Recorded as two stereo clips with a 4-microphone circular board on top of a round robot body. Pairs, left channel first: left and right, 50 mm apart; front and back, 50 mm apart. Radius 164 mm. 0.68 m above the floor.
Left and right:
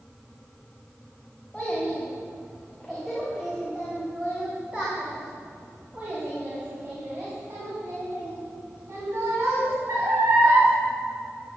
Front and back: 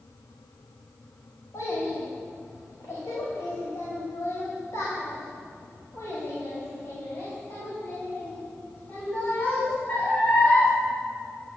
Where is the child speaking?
15° left, 3.5 m; by 10.7 s 65° right, 5 m.